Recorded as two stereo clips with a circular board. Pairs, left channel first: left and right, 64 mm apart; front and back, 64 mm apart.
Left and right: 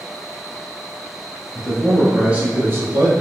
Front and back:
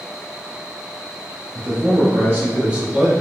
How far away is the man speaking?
About 2.0 m.